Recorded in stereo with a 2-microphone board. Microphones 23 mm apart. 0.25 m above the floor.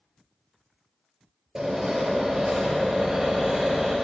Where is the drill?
35° right (ahead or behind), 5 m.